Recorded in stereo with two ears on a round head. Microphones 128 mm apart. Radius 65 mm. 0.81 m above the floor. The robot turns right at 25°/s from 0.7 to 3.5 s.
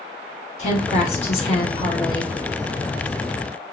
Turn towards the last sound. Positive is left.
turn(degrees=170)